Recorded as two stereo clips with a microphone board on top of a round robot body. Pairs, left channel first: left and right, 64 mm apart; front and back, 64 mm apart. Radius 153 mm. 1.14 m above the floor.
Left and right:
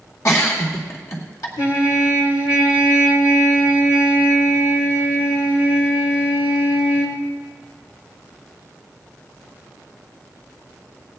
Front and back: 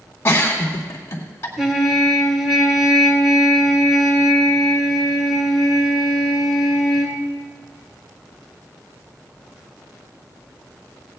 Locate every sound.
0.2 s a giggle: 50° left, 2 m
1.6 s a trumpet: 90° left, 2 m